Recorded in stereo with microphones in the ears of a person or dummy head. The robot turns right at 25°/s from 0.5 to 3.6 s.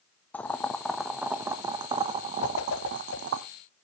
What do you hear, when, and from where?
0.3 s boiling: 170° left, 0.7 m; by 3.4 s 120° right, 0.7 m
2.4 s a whoosh: 75° left (ahead or behind), 1.1 m; by 3.2 s 80° left, 1.1 m